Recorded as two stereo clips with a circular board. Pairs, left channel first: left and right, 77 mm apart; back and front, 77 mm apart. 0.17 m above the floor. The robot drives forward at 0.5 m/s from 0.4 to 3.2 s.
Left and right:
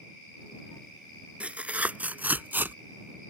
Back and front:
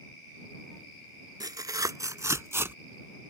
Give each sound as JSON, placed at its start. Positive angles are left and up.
{"t": 1.4, "sound": "tearing paper", "azimuth_deg": -20}